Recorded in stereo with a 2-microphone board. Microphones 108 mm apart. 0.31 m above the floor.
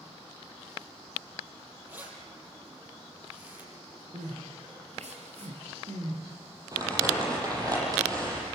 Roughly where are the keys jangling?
Centre.